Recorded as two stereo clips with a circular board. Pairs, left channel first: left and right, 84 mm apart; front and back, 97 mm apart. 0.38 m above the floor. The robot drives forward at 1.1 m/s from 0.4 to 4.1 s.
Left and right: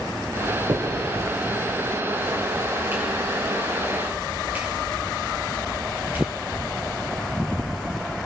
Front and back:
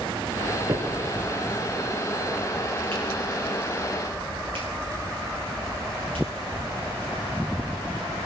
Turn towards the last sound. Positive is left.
turn(degrees=-160)